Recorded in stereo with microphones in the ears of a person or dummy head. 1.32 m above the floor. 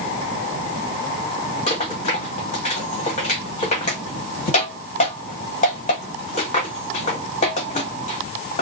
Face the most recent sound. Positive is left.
turn(degrees=35)  # may be behind; listen again after turning